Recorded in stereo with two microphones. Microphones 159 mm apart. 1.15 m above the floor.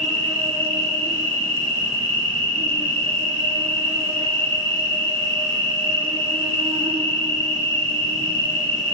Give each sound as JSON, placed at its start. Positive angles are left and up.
{"t": 0.0, "sound": "an insect", "side_deg": -35, "distance_m": 0.9}